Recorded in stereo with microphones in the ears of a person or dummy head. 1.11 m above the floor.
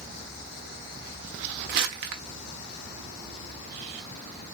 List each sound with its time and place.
1.7 s crumpling: 50° right (ahead or behind), 0.9 m